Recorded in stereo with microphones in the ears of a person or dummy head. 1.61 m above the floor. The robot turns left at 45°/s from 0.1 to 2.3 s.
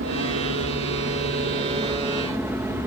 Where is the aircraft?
75° right; by 2.9 s 175° right.